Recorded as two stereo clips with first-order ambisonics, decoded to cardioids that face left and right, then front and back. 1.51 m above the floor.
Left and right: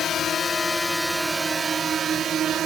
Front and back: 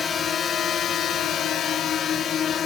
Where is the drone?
50° left; by 2.7 s 50° right.